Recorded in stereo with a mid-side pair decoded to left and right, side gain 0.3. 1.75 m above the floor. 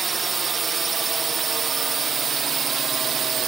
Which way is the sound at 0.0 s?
55° right.